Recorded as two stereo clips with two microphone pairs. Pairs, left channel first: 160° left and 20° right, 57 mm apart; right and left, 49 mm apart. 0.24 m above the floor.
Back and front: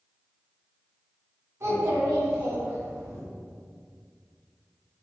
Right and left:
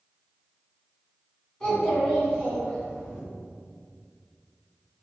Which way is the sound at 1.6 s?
25° right.